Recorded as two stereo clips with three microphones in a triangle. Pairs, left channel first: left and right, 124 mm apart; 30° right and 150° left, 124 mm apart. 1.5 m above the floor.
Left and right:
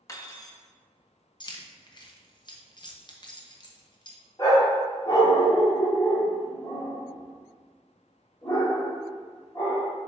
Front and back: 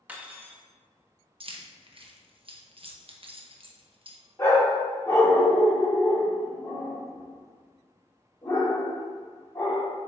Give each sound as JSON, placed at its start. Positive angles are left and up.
{"t": 0.1, "sound": "cutlery clinking", "azimuth_deg": 85, "distance_m": 0.9}
{"t": 1.4, "sound": "keys jangling", "azimuth_deg": 130, "distance_m": 0.9}
{"t": 4.4, "sound": "a dog barking", "azimuth_deg": 35, "distance_m": 1.7}